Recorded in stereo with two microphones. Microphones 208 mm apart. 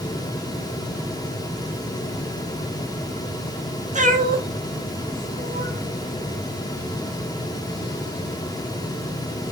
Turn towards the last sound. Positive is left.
turn(degrees=-65)  # may be behind; listen again after turning